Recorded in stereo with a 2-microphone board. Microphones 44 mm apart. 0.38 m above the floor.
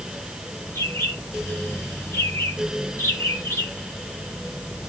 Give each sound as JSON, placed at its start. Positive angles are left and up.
{"t": 0.8, "sound": "a bird", "side_deg": 75, "distance_m": 3.5}